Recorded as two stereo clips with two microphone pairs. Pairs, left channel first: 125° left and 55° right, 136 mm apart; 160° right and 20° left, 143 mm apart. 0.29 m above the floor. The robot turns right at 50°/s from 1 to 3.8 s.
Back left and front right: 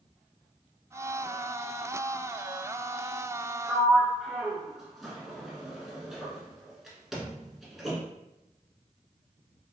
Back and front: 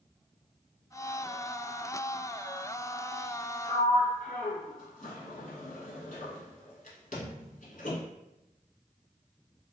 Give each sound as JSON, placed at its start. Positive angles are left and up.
{"t": 3.7, "sound": "a sliding door", "azimuth_deg": -150, "distance_m": 0.7}